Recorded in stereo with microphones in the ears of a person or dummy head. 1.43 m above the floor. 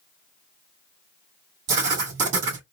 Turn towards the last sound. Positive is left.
turn(degrees=-70)  # may be behind; listen again after turning